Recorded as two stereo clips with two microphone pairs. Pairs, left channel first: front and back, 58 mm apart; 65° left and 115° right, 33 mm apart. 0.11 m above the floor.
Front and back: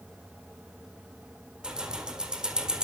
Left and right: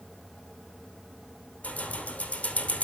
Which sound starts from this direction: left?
Keys jangling, at 1.6 s.